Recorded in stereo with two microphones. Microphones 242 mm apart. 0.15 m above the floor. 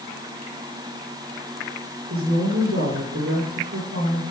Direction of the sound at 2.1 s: 65° right (ahead or behind).